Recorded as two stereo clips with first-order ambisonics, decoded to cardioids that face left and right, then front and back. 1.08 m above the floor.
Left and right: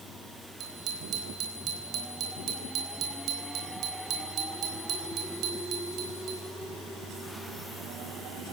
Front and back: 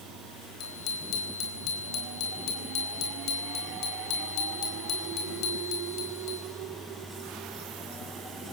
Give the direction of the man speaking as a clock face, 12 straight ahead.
No man speaking in this recording.